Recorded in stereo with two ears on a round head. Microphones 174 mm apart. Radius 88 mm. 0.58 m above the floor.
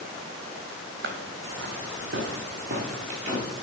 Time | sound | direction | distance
1.0 | footsteps | 60° right (ahead or behind) | 1.3 m